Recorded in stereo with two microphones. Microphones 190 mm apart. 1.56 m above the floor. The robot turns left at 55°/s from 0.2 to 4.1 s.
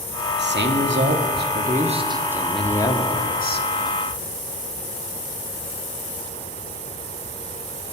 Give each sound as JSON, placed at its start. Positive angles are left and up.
{"t": 0.4, "sound": "a man speaking", "azimuth_deg": -65, "distance_m": 1.2}